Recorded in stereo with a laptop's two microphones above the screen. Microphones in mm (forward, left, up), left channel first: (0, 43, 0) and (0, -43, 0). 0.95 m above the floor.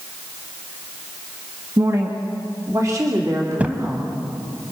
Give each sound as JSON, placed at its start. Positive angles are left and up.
{"t": 1.8, "sound": "a woman speaking", "side_deg": -40, "distance_m": 1.4}
{"t": 3.6, "sound": "a thud", "side_deg": -20, "distance_m": 0.9}